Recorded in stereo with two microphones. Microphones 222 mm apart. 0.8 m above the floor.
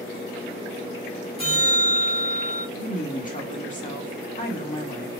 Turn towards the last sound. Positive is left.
turn(degrees=35)  # may be behind; listen again after turning